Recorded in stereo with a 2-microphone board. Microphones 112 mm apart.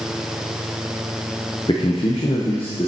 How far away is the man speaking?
About 0.7 m.